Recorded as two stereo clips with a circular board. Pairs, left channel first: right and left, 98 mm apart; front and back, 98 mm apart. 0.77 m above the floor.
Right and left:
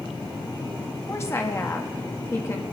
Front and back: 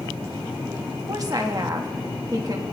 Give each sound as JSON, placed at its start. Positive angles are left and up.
{"t": 1.1, "sound": "a woman speaking", "azimuth_deg": -145, "distance_m": 1.2}